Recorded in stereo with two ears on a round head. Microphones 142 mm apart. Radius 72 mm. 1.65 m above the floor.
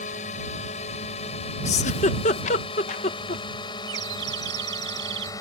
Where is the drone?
45° left (ahead or behind); by 5.4 s 20° left (ahead or behind).